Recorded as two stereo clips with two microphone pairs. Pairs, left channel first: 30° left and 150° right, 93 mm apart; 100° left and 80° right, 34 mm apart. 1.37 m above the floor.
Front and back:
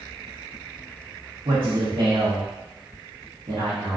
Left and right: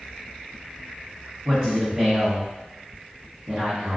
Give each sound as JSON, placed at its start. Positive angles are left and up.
{"t": 1.4, "sound": "a man speaking", "azimuth_deg": -165, "distance_m": 1.1}